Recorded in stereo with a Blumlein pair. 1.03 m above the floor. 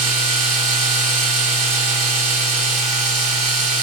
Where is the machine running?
30° right, 1.0 m.